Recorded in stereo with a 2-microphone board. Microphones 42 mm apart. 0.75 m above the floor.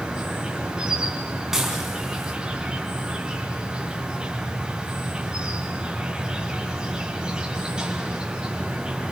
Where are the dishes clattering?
10° right (ahead or behind), 5 m.